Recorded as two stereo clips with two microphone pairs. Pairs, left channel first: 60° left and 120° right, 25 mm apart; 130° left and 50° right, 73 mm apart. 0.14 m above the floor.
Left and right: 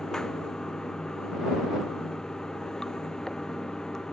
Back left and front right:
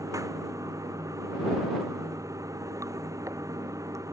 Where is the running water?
5° right.